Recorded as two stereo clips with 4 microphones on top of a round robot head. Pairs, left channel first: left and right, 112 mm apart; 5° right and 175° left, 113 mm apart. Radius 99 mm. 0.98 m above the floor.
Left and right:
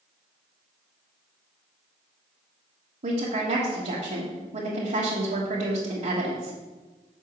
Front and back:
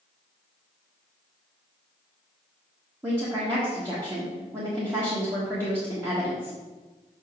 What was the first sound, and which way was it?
A woman speaking, 115° right.